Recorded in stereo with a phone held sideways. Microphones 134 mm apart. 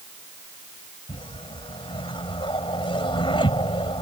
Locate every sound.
1.1 s a whoosh: 40° left (ahead or behind)